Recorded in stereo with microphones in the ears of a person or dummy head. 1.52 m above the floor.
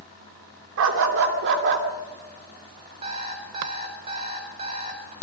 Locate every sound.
0.8 s a dog barking: 65° right (ahead or behind), 2 m; by 1.9 s 55° right (ahead or behind), 2.0 m
3.0 s an alarm clock: 30° right (ahead or behind), 3.5 m